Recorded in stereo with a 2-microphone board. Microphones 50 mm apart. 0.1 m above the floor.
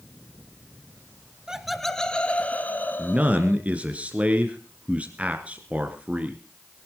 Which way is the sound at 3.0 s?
25° right (ahead or behind).